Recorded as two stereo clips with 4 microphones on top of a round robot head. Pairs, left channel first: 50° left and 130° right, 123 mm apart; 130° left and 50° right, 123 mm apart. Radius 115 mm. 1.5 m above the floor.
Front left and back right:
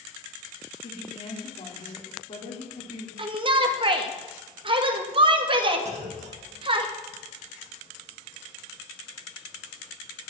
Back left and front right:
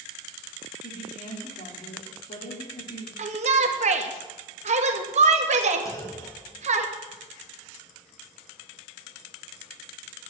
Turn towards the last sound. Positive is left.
turn(degrees=-160)